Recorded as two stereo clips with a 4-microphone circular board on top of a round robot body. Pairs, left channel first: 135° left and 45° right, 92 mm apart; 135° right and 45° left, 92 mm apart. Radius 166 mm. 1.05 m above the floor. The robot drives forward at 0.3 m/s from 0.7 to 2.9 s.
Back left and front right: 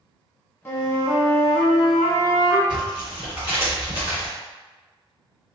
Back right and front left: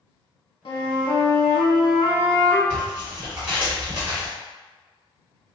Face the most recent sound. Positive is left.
turn(degrees=120)